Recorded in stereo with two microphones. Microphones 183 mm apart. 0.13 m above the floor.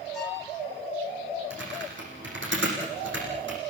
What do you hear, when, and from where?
0.1 s a violin: centre (ahead or behind), 8 m
1.5 s typing on a keyboard: 75° right (ahead or behind), 8.5 m